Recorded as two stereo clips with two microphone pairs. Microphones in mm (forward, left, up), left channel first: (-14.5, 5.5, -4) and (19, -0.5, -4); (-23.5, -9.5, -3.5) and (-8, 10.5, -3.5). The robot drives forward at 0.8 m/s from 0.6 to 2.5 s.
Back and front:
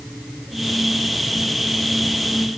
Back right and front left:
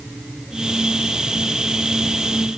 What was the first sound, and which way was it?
Only background noise.